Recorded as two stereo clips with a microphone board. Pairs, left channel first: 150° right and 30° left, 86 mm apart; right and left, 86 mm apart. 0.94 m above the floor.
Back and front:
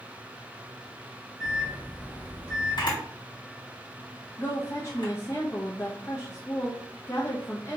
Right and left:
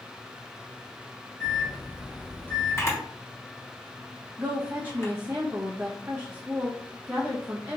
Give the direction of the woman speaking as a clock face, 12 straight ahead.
7 o'clock.